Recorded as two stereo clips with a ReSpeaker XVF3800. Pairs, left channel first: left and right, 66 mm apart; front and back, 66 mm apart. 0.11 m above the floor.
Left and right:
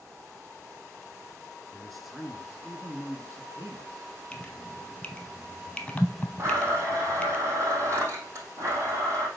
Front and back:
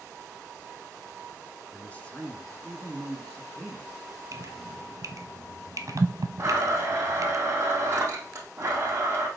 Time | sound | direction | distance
1.7 | a man speaking | 25° left | 1.3 m
4.3 | dripping | 160° left | 0.9 m
6.4 | a blender | 130° right | 3 m